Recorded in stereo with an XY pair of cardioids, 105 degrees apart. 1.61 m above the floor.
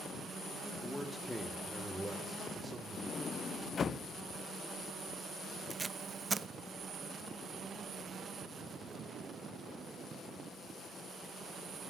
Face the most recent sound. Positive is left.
turn(degrees=-30)